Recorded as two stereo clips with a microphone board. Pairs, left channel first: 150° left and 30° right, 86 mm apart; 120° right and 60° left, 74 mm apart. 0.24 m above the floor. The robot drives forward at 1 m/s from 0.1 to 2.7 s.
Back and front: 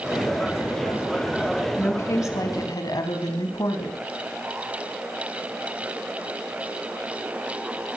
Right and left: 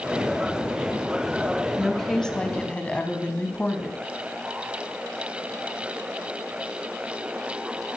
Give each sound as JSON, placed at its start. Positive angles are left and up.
{"t": 1.8, "sound": "a woman speaking", "azimuth_deg": 150, "distance_m": 1.3}